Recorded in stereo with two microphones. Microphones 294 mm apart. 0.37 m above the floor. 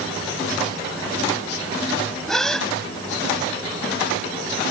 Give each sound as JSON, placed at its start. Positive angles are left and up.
{"t": 2.3, "sound": "a gasp", "side_deg": 0}